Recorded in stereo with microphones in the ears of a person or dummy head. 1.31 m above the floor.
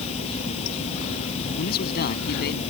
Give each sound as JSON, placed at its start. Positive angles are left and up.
{"t": 0.0, "sound": "running water", "side_deg": 45}
{"t": 1.6, "sound": "a man speaking", "side_deg": 70}